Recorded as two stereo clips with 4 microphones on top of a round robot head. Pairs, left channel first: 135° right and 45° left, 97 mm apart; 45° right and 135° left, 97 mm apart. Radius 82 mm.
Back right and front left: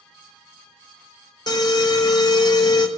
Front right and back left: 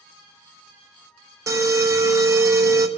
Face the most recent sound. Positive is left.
turn(degrees=-170)